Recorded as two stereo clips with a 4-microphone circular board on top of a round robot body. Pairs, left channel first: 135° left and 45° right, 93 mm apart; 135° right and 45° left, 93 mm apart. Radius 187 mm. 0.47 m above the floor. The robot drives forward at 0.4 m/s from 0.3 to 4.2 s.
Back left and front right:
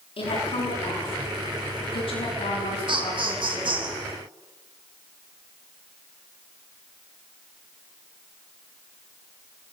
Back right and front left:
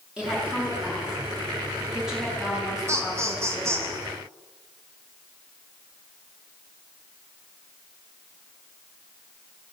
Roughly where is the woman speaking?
Behind left.